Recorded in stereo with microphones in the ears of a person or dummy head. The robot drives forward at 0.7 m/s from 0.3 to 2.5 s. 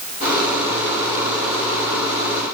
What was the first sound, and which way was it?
Only background noise.